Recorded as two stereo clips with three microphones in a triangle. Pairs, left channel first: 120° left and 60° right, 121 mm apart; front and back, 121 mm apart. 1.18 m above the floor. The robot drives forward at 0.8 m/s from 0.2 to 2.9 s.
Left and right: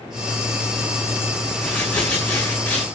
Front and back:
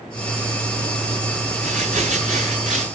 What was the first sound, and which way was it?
Crumpling, 160° right.